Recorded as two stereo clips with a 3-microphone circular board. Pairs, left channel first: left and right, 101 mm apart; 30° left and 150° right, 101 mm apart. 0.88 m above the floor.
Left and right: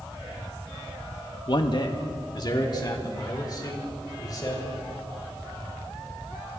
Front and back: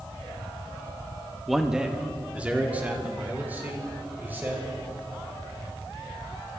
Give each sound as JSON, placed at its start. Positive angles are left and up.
{"t": 1.5, "sound": "a man speaking", "azimuth_deg": 120, "distance_m": 0.8}